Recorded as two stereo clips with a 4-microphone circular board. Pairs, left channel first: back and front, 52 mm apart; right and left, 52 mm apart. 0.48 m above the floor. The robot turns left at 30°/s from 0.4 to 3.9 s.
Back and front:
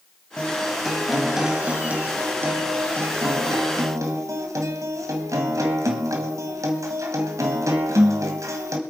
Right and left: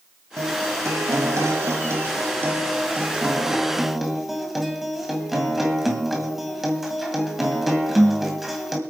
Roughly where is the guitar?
Left.